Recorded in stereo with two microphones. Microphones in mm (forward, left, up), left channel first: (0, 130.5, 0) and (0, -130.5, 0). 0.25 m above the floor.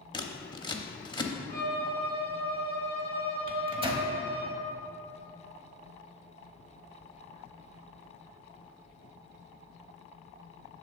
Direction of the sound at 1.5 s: 40° right (ahead or behind).